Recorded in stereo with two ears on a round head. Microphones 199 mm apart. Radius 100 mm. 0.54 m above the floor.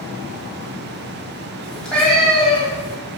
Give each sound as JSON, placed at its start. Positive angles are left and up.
{"t": 1.6, "sound": "a cat meowing", "side_deg": 5, "distance_m": 1.3}